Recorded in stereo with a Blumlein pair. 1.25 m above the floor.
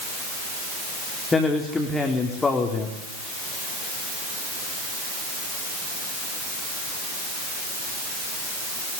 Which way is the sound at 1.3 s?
15° left.